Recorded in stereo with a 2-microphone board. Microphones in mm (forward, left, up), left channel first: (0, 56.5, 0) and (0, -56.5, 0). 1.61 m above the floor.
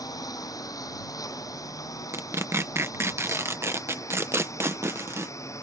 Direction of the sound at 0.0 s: 30° left (ahead or behind).